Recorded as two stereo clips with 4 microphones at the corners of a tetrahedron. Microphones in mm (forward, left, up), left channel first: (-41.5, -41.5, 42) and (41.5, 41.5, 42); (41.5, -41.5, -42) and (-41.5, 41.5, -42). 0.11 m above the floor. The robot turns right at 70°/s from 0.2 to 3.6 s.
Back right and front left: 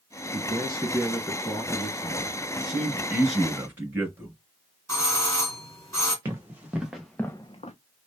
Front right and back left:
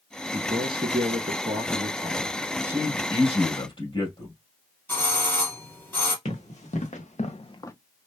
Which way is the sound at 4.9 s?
95° right.